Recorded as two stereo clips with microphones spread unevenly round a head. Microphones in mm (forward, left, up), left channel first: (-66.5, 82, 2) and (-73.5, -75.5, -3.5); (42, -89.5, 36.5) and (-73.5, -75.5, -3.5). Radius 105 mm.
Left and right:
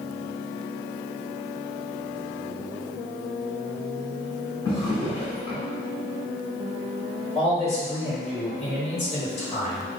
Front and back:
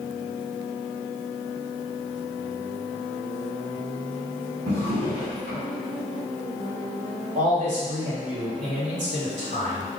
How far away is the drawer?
About 1.6 m.